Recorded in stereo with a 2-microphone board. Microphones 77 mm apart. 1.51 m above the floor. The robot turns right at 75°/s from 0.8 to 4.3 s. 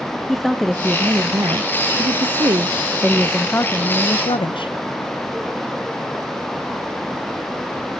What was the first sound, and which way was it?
A woman speaking, straight behind.